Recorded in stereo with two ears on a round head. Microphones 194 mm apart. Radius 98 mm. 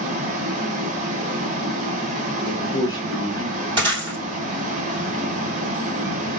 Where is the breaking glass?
20° right (ahead or behind), 1.9 m.